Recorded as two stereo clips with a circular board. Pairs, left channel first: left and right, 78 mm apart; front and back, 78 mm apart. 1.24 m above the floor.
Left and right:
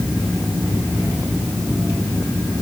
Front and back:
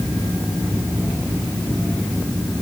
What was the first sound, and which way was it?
Only background noise.